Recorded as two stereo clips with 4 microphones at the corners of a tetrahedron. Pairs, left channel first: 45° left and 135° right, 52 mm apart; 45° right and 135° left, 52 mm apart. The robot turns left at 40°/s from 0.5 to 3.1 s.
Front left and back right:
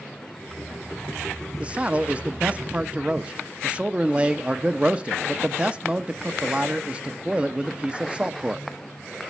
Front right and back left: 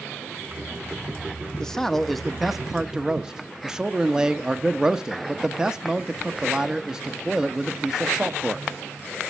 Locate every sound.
1.6 s a man speaking: 105° right, 0.8 m; by 8.7 s 165° right, 0.8 m